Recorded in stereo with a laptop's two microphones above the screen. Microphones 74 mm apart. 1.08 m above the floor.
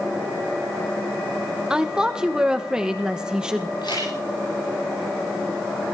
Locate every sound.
1.7 s a woman speaking: 10° right (ahead or behind), 1.1 m
3.8 s a camera shutter: 85° left, 9.5 m